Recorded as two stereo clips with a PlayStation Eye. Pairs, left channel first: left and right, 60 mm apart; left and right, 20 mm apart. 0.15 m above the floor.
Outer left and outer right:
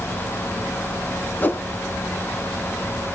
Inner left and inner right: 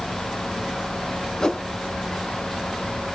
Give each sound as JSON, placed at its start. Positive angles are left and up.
{"t": 1.4, "sound": "a whoosh", "side_deg": 30, "distance_m": 0.6}